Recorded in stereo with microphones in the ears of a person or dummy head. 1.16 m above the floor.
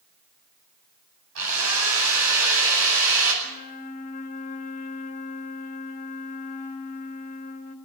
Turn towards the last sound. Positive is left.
turn(degrees=45)  # may be behind; listen again after turning